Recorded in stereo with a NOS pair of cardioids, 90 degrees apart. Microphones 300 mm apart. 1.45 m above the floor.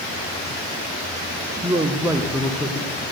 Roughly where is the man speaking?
Ahead.